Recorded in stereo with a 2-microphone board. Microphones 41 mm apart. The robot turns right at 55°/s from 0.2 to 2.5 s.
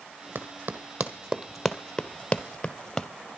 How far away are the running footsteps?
About 1.8 m.